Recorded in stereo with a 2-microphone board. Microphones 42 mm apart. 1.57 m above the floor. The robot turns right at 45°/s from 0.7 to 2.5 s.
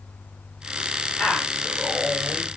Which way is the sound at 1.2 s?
160° left.